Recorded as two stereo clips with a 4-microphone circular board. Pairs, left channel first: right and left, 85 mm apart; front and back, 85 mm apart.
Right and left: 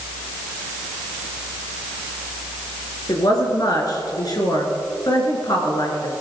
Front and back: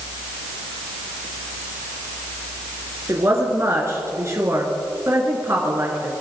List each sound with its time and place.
3.1 s a woman speaking: 125° right, 3.5 m